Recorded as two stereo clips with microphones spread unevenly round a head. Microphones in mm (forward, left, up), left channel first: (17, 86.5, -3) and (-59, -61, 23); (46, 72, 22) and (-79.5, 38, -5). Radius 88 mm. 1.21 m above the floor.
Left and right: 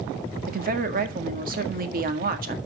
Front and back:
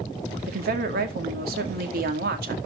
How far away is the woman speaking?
About 2 m.